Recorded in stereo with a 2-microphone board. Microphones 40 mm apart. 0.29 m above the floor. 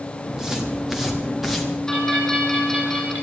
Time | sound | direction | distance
0.3 | footsteps | 10° right (ahead or behind) | 5.5 m
1.9 | a bell | 15° left (ahead or behind) | 9.5 m